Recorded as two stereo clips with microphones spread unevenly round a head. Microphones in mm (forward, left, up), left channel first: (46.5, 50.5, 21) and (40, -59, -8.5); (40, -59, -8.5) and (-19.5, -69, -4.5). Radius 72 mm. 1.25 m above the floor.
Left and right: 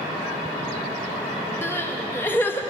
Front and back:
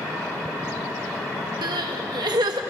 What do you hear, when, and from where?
1.6 s crying: 160° left, 1.3 m